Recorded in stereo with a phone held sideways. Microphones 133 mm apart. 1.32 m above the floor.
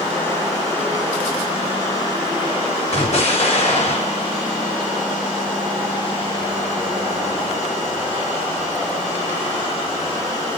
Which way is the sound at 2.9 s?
55° left (ahead or behind).